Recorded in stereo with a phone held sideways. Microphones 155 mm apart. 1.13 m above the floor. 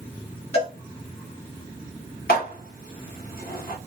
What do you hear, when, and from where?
0.5 s a cowbell: 40° left (ahead or behind), 2 m
2.3 s dishes clattering: 75° left (ahead or behind), 2 m